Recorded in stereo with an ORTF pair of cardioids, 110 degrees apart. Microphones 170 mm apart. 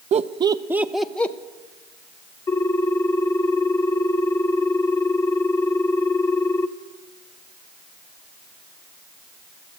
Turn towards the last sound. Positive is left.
turn(degrees=20)